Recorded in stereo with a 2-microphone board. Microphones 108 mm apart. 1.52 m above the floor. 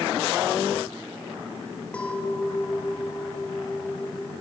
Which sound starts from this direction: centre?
A clink, at 1.9 s.